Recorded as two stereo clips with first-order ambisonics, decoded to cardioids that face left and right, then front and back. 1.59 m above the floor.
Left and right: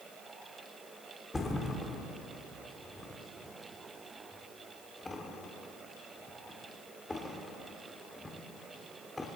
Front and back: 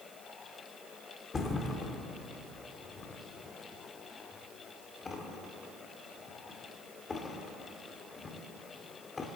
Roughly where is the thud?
Ahead left.